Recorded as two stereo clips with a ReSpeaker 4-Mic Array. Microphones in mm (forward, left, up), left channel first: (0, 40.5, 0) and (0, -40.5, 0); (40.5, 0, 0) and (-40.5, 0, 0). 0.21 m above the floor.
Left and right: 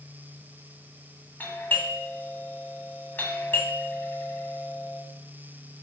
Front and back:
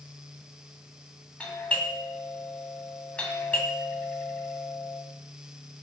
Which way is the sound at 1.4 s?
55° left.